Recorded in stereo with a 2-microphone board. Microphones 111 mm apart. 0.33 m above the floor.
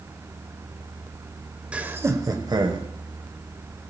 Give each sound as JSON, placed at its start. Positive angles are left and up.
{"t": 1.7, "sound": "laughter", "side_deg": -10, "distance_m": 1.2}